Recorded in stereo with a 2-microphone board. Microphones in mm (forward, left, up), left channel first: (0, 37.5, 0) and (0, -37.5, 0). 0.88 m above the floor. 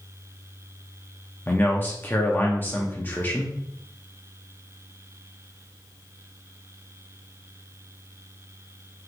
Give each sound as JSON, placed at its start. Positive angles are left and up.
{"t": 1.5, "sound": "a man speaking", "side_deg": 25, "distance_m": 0.6}